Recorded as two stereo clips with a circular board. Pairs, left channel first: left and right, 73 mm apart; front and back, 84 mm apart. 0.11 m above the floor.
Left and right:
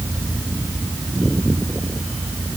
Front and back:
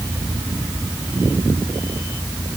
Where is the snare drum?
I don't hear a snare drum.